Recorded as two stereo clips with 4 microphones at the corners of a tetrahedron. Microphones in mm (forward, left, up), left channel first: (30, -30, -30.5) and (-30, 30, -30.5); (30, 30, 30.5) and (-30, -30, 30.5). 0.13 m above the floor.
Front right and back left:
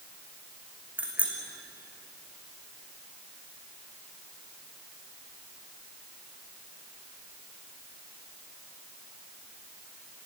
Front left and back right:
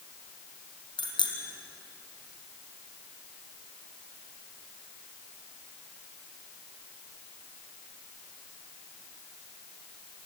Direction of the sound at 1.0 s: 60° left.